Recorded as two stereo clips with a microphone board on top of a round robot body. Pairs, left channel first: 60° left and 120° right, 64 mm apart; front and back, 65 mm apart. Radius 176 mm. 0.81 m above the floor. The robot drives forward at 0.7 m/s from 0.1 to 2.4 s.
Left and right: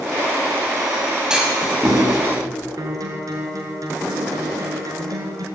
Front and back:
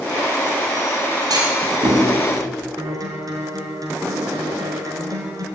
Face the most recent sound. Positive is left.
turn(degrees=-150)